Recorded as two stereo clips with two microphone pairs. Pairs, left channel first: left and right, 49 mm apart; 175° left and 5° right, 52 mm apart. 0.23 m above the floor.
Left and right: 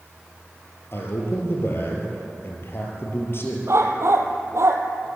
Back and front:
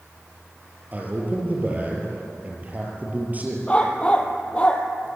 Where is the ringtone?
No ringtone in this recording.